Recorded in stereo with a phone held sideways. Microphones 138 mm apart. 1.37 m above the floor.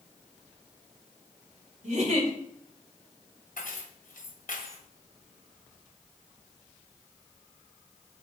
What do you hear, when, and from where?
1.8 s a giggle: 60° right (ahead or behind), 2.5 m
3.6 s keys jangling: 80° left, 1.2 m